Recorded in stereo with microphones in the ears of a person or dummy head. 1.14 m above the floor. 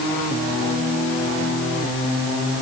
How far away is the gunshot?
I don't hear a gunshot.